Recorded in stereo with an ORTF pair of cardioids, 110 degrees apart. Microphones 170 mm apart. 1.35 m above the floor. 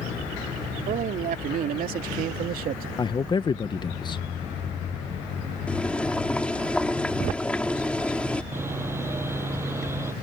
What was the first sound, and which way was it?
A man speaking, 55° right.